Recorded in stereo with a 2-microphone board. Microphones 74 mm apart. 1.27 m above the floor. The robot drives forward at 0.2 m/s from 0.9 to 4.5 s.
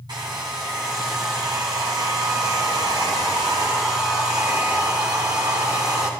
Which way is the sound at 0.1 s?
70° right (ahead or behind).